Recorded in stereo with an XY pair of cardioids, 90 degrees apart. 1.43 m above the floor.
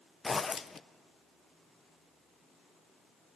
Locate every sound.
0.2 s a zipper: 35° left, 0.6 m